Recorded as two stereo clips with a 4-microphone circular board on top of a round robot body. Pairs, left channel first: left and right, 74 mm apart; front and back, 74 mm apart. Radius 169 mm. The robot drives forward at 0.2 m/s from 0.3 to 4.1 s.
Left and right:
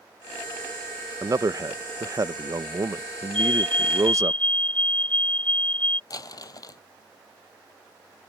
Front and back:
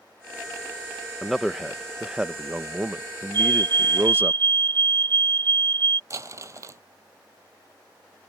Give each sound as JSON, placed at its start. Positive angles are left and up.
{"t": 1.2, "sound": "a man speaking", "azimuth_deg": -90}
{"t": 3.3, "sound": "a fire alarm", "azimuth_deg": 165}
{"t": 6.1, "sound": "crumpling", "azimuth_deg": 130}